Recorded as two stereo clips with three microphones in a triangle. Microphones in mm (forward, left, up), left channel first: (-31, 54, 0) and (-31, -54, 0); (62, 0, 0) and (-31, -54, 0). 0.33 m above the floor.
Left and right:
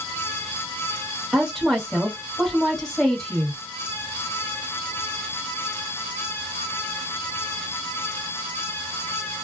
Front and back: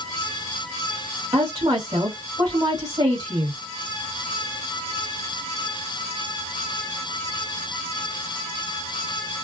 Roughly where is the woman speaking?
Behind.